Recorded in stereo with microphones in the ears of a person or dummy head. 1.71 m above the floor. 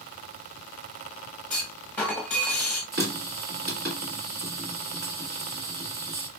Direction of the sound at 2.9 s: 45° right (ahead or behind).